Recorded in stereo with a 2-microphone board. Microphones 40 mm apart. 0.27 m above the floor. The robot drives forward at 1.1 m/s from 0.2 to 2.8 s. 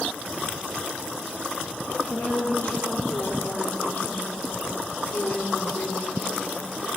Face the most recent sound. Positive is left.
turn(degrees=75)  # may be behind; listen again after turning